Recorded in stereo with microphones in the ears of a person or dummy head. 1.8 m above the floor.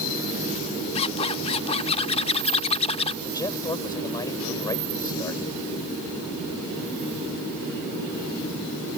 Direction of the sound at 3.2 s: 20° left (ahead or behind).